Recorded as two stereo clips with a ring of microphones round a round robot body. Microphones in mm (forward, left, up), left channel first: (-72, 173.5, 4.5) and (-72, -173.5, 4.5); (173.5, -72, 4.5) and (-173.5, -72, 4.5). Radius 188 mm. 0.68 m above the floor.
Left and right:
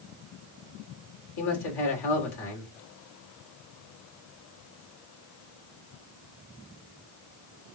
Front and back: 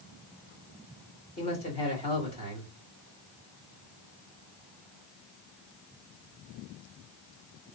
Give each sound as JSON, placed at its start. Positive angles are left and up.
{"t": 1.4, "sound": "a man speaking", "azimuth_deg": 75, "distance_m": 2.5}